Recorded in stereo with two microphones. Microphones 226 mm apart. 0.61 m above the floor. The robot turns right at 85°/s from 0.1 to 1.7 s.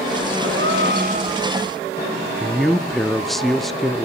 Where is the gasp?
100° right, 1.7 m; by 1.5 s 10° right, 1.7 m.